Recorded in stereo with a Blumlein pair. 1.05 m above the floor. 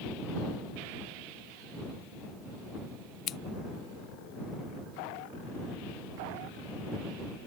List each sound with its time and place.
3.3 s scissors: 30° left